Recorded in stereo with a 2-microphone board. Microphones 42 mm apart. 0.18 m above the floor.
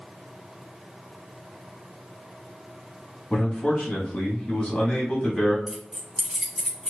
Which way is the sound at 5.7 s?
10° right (ahead or behind).